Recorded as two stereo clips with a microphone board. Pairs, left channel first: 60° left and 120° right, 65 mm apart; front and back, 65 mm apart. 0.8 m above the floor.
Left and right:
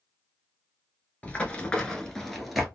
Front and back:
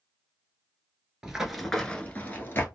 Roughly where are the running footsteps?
Left.